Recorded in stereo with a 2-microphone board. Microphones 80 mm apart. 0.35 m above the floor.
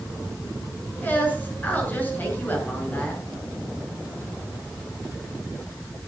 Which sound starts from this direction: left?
A woman speaking, at 1.0 s.